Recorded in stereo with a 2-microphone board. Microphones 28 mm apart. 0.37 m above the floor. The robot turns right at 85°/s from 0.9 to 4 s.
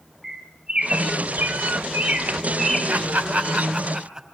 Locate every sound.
0.2 s a bird: 15° right (ahead or behind), 3 m; by 2.8 s 5° right (ahead or behind), 3 m
2.9 s laughter: 50° right (ahead or behind), 3 m; by 4.3 s 25° right (ahead or behind), 3 m